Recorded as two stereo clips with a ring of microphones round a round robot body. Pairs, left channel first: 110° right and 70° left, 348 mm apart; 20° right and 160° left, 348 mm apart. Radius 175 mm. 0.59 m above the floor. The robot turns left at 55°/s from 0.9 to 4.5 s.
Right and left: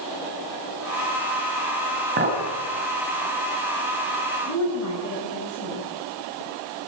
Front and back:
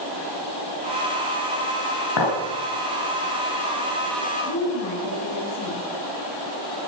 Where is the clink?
5° left, 3.5 m; by 2.4 s 10° right, 3.5 m.